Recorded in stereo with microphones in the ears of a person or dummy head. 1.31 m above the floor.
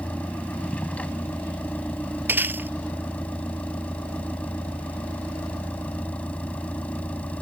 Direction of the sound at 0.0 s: 15° left (ahead or behind).